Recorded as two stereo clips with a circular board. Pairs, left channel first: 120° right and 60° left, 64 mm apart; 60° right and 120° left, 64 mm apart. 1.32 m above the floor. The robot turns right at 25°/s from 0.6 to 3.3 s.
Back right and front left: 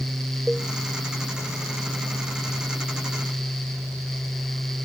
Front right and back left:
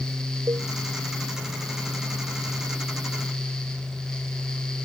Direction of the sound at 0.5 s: 140° left.